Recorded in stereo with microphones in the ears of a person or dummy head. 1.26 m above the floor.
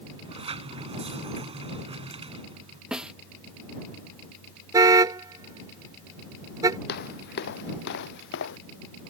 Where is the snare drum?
5° right (ahead or behind).